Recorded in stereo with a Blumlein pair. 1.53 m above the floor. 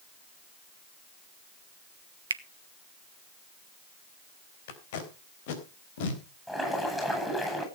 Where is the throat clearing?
I don't hear throat clearing.